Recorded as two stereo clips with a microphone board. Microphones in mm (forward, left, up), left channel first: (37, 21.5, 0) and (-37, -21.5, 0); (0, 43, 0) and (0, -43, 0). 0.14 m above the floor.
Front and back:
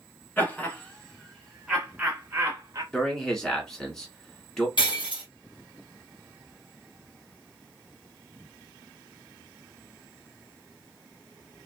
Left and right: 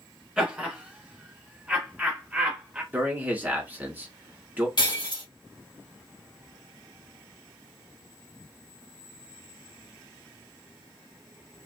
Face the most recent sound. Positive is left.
turn(degrees=60)